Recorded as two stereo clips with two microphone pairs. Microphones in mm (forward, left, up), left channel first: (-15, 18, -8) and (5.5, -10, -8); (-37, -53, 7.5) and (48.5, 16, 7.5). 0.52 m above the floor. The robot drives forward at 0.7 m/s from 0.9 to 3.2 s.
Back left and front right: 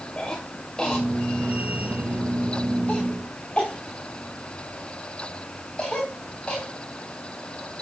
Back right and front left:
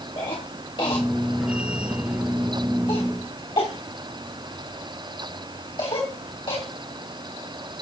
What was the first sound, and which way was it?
A cough, 170° right.